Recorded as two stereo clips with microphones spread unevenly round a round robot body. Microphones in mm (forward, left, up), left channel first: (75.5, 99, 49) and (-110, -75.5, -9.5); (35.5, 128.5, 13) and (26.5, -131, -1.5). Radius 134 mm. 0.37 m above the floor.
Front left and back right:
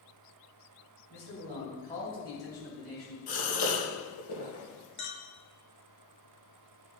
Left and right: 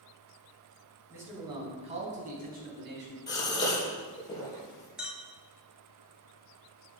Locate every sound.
1.1 s a man speaking: 10° right, 3.5 m; by 3.2 s 50° right, 3.5 m
3.3 s a gasp: 15° left, 3.5 m
5.0 s a clink: 5° right, 1.2 m